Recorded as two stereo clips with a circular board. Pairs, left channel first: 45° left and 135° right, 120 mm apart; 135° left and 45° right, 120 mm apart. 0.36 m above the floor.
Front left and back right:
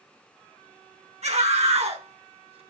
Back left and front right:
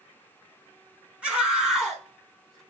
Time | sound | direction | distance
1.2 | a scream | 125° right | 5 m